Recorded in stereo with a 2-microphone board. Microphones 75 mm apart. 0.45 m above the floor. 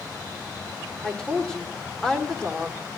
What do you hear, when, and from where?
1.0 s a woman speaking: 10° left (ahead or behind), 1.1 m